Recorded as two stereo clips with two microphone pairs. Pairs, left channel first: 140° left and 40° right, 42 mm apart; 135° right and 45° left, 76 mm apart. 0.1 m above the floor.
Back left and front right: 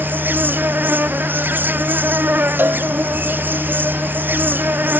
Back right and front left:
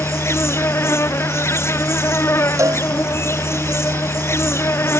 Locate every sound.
0.0 s an insect: 80° right
2.6 s a cowbell: straight ahead